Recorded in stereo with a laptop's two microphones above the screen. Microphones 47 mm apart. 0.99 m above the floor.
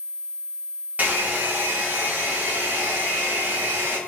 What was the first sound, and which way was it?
A hair dryer, 35° right (ahead or behind).